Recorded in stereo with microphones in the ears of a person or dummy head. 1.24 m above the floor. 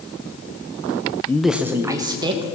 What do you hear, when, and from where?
1.3 s a man speaking: 15° left (ahead or behind), 0.5 m; by 2.5 s 25° right (ahead or behind), 1.5 m